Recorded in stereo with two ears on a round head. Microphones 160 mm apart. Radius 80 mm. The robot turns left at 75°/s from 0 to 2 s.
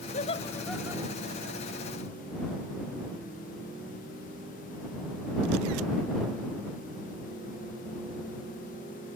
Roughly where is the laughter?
Left.